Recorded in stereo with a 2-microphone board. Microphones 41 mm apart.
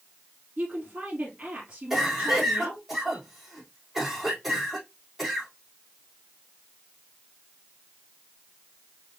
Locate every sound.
0.6 s a woman speaking: 30° right (ahead or behind), 2.5 m
1.9 s a cough: 5° right (ahead or behind), 4 m